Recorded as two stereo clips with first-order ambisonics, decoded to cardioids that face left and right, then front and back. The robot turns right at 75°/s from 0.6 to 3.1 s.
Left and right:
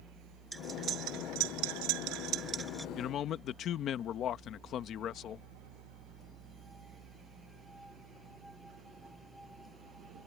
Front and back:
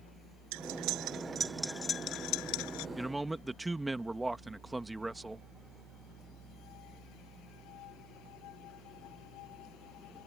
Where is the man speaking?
90° left; by 5.5 s 100° left.